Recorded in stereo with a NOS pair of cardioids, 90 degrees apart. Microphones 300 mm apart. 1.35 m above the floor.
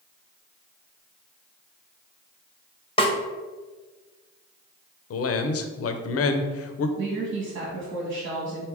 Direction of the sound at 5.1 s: 50° left.